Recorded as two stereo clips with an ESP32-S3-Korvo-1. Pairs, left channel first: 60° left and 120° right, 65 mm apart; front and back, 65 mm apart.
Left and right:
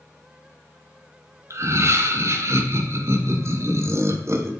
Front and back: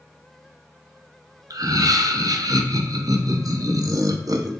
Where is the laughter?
165° right, 0.5 m.